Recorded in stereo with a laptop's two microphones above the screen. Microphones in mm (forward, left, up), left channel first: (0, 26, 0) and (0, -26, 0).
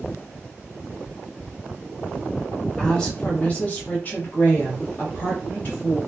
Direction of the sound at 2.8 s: 15° left (ahead or behind).